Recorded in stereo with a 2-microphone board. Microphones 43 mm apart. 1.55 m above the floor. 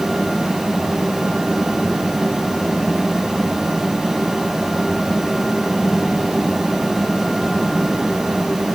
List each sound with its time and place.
Only background noise.